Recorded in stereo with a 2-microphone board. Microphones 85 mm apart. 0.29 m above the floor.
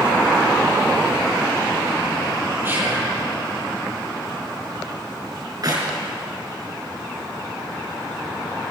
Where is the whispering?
25° right (ahead or behind), 9.5 m.